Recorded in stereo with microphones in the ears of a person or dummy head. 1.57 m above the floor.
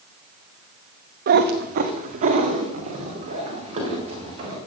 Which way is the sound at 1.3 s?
50° right (ahead or behind).